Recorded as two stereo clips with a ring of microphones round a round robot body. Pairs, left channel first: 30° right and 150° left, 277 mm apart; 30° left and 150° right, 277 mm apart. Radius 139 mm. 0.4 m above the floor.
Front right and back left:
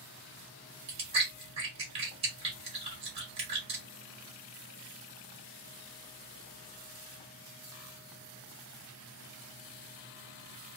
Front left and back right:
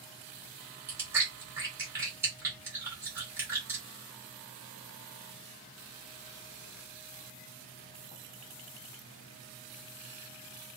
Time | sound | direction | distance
0.9 | chewing | 145° left | 1.2 m